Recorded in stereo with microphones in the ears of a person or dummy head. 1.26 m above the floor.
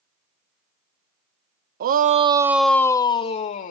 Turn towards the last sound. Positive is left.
turn(degrees=45)  # may be behind; listen again after turning